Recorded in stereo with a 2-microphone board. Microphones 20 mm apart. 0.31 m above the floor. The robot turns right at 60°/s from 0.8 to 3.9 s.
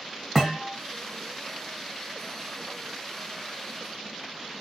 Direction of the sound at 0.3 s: 10° right (ahead or behind).